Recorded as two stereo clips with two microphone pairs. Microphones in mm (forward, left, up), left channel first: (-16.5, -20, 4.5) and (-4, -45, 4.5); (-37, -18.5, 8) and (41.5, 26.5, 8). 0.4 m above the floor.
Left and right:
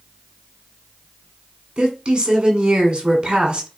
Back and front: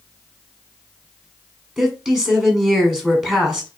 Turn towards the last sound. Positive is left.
turn(degrees=-50)